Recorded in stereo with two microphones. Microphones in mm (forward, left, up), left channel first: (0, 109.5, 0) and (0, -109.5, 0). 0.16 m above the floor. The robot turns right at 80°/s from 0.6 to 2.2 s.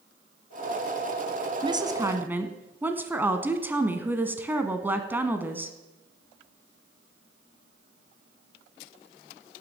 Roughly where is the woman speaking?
Right.